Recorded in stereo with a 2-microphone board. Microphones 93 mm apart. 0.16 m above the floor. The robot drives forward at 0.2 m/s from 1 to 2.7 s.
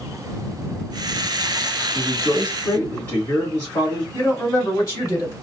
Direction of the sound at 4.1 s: 30° left (ahead or behind).